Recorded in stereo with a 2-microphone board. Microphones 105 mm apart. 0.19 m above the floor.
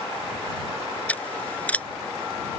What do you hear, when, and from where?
1.1 s scissors: 15° left (ahead or behind)